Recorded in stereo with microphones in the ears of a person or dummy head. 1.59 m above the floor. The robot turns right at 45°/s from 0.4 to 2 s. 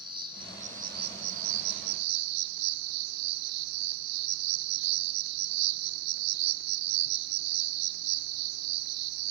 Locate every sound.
0.0 s an insect: 165° right, 1.1 m; by 9.3 s 90° right, 1.1 m